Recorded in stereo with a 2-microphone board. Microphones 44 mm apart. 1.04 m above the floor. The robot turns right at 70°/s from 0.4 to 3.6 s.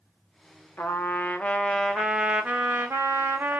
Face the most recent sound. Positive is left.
turn(degrees=-60)